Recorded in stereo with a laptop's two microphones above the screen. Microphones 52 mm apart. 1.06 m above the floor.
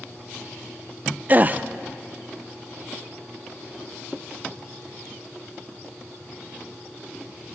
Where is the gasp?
35° right (ahead or behind), 0.6 m.